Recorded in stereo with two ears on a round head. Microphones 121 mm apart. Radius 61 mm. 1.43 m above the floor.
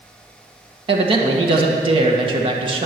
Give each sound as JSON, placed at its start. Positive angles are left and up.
{"t": 0.9, "sound": "a man speaking", "side_deg": -40, "distance_m": 1.7}